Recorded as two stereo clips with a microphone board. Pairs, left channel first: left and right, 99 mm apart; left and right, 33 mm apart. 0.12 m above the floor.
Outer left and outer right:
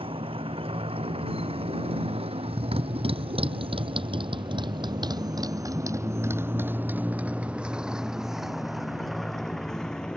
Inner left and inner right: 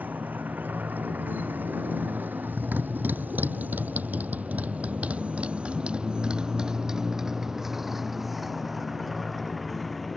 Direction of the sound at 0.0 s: 70° right (ahead or behind).